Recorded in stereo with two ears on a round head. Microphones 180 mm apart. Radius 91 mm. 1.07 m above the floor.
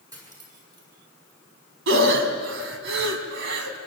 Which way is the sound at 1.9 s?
65° right (ahead or behind).